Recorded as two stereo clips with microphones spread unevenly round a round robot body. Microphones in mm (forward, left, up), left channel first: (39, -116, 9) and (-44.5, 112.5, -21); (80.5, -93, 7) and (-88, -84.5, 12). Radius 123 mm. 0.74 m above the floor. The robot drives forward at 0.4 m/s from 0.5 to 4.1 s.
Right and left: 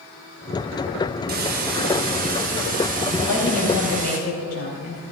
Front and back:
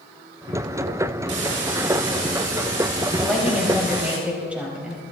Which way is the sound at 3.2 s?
95° right.